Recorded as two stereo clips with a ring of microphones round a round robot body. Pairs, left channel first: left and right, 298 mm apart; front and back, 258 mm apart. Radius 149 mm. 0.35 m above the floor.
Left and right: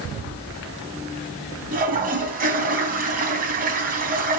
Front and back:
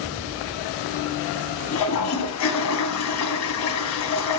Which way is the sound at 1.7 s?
30° right.